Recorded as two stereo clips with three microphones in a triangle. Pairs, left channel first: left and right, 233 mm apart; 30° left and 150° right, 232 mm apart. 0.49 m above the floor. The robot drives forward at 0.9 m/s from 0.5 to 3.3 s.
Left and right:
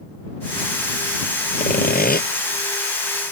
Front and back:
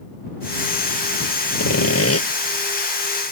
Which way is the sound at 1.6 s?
35° left.